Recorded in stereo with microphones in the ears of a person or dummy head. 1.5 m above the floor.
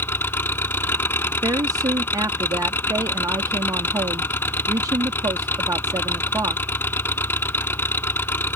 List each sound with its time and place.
0.0 s an engine running: 10° left (ahead or behind)
1.4 s a woman speaking: 20° right (ahead or behind)